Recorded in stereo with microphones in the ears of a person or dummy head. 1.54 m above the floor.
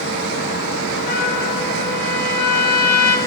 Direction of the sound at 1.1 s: 55° left (ahead or behind).